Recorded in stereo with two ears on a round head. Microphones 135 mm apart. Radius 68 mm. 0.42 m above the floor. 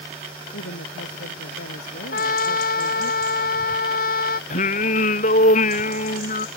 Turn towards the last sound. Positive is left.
turn(degrees=55)  # may be behind; listen again after turning